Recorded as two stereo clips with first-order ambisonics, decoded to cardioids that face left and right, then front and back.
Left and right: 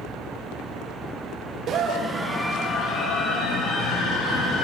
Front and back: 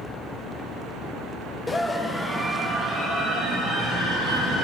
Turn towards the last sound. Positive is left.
turn(degrees=120)